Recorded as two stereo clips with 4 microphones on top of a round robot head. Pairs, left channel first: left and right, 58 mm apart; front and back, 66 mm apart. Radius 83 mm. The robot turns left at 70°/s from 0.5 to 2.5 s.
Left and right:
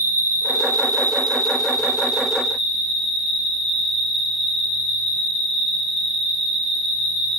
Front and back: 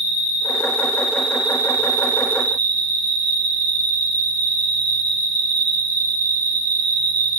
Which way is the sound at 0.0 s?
35° right.